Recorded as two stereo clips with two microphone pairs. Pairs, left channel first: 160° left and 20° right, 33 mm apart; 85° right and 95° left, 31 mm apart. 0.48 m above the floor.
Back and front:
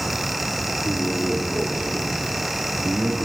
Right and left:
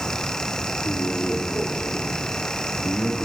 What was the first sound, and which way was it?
A man speaking, 70° right.